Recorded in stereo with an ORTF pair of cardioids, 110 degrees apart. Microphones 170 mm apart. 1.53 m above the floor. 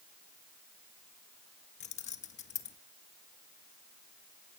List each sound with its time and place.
1.8 s keys jangling: 45° left, 1.5 m